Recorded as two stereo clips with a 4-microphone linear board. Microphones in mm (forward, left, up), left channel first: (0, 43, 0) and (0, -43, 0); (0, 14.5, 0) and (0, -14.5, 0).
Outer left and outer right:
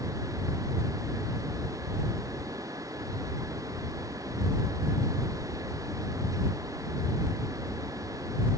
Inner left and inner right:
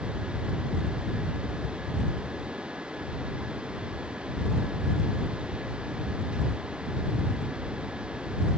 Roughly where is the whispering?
I don't hear whispering.